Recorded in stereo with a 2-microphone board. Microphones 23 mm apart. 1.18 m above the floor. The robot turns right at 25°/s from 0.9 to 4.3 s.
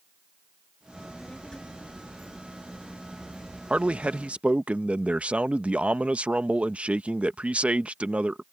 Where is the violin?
I don't hear a violin.